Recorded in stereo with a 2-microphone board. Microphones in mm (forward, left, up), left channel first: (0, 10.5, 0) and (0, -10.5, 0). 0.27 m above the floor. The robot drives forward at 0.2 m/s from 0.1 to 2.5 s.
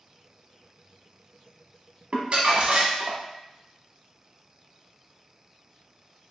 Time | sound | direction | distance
2.1 | crumpling | 65° right (ahead or behind) | 0.8 m